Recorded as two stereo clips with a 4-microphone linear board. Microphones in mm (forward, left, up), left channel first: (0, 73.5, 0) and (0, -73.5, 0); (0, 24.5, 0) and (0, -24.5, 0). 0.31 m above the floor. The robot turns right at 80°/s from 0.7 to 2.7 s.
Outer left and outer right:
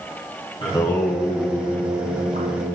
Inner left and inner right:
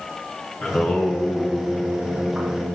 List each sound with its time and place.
0.6 s singing: 140° left, 2.5 m; by 2.8 s 60° right, 2.5 m